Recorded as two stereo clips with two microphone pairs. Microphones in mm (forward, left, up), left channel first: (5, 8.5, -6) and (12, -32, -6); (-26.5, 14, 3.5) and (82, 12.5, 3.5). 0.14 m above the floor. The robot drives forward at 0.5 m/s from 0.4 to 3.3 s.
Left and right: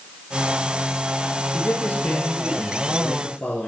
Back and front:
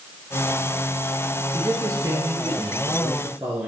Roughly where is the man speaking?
Ahead left.